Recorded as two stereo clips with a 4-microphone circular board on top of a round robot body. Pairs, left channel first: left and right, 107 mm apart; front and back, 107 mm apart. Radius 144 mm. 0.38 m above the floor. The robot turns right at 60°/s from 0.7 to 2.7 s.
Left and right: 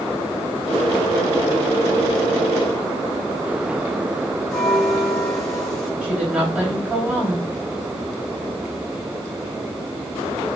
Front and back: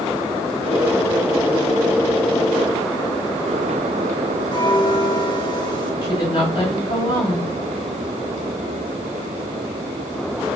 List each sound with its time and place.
4.5 s a bell: 5° left, 1.6 m
6.0 s a woman speaking: 15° right, 2.5 m